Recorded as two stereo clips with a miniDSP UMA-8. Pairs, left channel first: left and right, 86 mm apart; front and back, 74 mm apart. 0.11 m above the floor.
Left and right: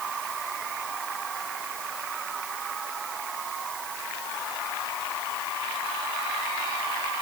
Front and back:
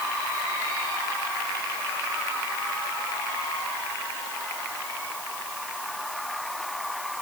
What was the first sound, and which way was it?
Only background noise.